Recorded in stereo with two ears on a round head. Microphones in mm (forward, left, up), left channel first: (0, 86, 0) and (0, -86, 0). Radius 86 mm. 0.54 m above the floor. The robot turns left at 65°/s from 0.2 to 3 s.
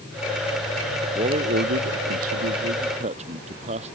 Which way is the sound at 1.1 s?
25° right.